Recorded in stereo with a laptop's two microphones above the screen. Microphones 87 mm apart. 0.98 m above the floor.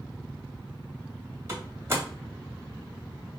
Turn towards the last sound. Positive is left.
turn(degrees=-30)  # may be behind; listen again after turning